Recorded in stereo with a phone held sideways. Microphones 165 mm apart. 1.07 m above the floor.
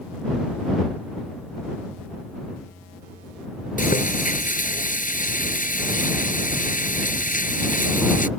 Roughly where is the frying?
Left.